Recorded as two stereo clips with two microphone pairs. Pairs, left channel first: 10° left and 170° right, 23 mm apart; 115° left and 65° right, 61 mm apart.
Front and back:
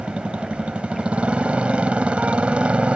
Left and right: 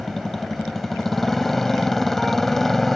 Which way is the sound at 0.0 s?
160° right.